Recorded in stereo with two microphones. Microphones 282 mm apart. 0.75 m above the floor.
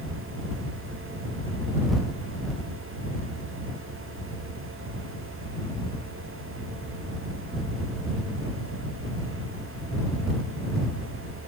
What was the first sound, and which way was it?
Only background noise.